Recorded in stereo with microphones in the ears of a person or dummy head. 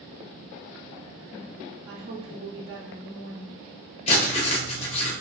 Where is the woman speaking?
75° right (ahead or behind), 0.8 m.